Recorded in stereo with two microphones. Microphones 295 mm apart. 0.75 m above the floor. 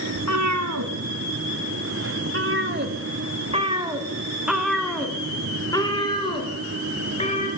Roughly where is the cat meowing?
Right.